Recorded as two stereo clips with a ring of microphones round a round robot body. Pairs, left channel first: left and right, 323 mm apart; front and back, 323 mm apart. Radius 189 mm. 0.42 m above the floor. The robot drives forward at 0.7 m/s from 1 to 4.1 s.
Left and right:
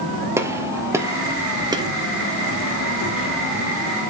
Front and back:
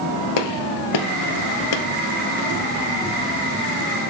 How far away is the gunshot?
About 1.6 m.